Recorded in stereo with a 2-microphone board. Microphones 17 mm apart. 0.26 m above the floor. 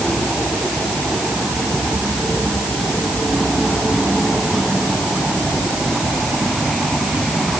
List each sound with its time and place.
Only background noise.